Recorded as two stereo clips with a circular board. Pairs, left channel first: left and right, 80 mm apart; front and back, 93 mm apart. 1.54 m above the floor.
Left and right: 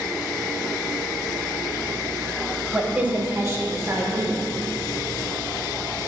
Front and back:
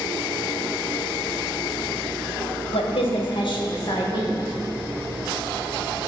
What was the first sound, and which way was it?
A woman speaking, 10° right.